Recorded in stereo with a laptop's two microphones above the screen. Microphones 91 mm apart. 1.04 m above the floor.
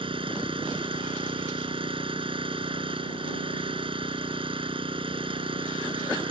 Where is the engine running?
70° right (ahead or behind).